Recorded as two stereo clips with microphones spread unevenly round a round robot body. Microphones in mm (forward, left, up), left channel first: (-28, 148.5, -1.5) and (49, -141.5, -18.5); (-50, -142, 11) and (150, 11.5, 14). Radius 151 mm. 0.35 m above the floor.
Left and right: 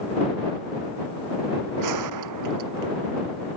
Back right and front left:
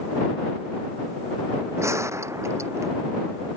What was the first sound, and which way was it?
A gunshot, 45° right.